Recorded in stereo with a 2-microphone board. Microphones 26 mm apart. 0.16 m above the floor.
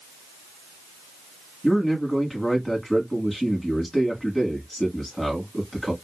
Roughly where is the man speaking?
Centre.